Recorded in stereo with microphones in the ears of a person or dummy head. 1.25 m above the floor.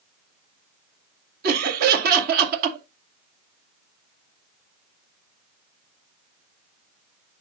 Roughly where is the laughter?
Right.